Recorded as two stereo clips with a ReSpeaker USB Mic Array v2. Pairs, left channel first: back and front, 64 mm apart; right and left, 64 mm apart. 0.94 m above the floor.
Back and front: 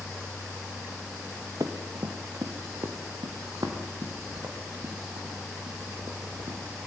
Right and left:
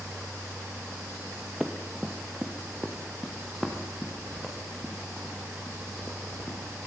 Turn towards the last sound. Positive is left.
turn(degrees=-5)